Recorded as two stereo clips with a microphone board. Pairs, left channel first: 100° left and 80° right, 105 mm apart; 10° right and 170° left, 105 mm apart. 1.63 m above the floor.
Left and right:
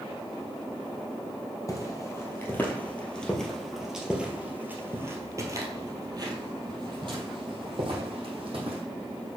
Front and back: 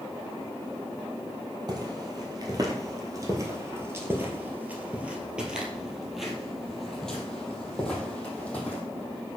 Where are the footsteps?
145° left, 2 m; by 8.8 s 85° right, 3.5 m.